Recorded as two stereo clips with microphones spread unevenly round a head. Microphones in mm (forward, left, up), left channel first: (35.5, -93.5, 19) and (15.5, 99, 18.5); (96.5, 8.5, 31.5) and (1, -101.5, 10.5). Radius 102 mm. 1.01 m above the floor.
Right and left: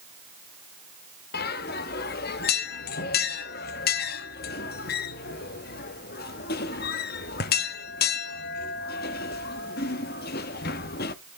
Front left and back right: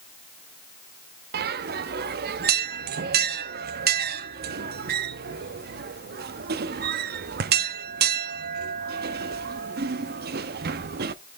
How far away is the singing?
I don't hear singing.